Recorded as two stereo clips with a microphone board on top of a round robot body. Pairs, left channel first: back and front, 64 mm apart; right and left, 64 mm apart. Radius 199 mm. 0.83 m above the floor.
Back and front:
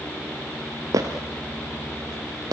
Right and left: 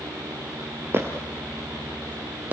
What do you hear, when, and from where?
0.9 s footsteps: 35° left, 1.1 m; by 2.5 s 25° left, 2.0 m